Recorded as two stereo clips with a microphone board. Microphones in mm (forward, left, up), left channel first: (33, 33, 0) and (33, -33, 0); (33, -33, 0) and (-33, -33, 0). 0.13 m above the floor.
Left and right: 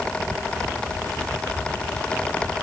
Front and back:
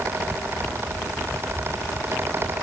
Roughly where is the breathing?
No breathing in this recording.